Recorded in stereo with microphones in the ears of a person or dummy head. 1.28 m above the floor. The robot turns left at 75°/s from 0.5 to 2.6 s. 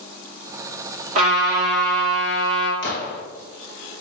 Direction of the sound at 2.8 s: 60° left (ahead or behind).